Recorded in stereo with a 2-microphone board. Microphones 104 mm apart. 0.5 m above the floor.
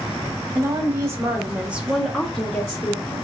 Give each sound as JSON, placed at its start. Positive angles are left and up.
{"t": 0.6, "sound": "a woman speaking", "side_deg": -30, "distance_m": 1.1}